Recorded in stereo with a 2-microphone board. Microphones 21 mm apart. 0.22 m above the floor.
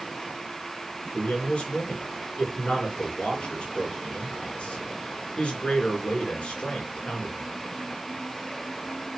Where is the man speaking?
60° left (ahead or behind), 3 m.